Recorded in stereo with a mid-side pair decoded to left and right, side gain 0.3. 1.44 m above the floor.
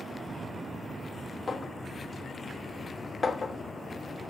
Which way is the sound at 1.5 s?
35° left.